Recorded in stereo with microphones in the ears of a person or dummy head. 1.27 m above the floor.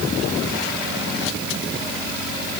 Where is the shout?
No shout in this recording.